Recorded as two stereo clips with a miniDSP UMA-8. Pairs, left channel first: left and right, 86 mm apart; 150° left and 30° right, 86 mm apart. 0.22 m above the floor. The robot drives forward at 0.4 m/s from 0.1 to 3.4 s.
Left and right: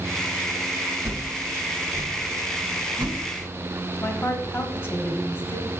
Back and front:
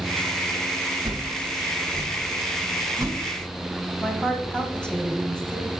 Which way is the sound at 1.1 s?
40° right.